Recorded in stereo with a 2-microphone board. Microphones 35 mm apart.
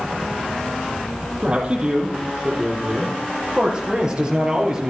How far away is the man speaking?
About 5.5 m.